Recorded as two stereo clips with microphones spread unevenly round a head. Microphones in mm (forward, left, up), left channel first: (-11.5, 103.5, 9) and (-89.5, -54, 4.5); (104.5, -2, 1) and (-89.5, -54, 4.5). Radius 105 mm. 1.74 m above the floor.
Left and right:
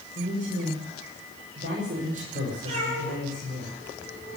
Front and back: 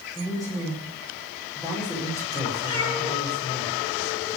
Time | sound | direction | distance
0.1 | a man speaking | 60° right | 6.5 m
2.6 | a cat meowing | 50° right | 9.5 m